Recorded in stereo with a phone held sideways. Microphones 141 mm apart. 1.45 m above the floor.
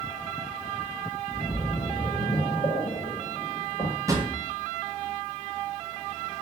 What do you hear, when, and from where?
1.3 s a splash: 45° left (ahead or behind), 1.3 m
4.1 s a drawer: 20° right (ahead or behind), 0.5 m